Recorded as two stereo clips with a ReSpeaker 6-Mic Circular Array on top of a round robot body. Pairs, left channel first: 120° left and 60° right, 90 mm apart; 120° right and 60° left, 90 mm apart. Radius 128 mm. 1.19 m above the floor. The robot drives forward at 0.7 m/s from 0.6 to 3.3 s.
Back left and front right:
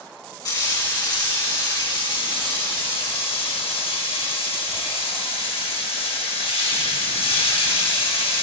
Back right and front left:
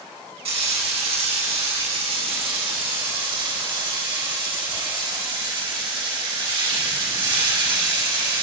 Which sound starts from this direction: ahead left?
Frying, at 0.5 s.